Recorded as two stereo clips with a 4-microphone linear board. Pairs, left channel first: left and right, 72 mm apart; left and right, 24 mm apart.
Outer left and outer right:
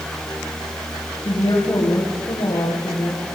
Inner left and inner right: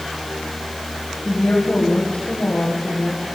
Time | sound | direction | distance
1.2 | a woman speaking | 75° left (ahead or behind) | 9.5 m